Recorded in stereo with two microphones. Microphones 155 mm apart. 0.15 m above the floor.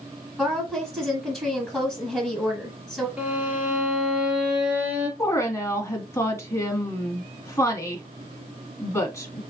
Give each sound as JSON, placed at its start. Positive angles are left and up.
{"t": 0.4, "sound": "a woman speaking", "side_deg": -5, "distance_m": 1.6}
{"t": 3.2, "sound": "a violin", "side_deg": -10, "distance_m": 1.5}
{"t": 5.2, "sound": "a woman speaking", "side_deg": 15, "distance_m": 1.2}